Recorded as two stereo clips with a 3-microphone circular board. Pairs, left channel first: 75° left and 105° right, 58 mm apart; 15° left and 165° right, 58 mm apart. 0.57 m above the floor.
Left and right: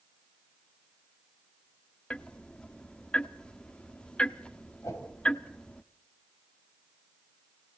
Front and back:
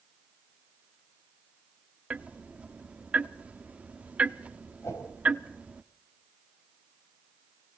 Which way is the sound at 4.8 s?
50° left.